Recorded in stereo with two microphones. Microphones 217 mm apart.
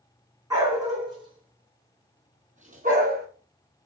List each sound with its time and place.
0.5 s a dog barking: 15° right (ahead or behind), 3.5 m; by 3.3 s 45° right (ahead or behind), 1.6 m